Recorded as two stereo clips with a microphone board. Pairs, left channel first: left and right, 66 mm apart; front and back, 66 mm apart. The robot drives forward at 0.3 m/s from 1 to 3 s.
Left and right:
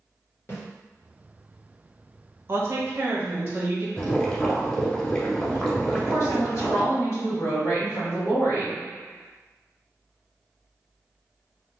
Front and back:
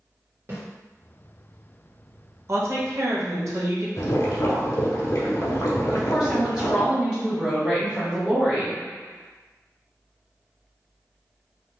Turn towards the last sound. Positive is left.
turn(degrees=105)